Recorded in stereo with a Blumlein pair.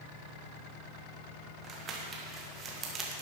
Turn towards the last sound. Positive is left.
turn(degrees=-25)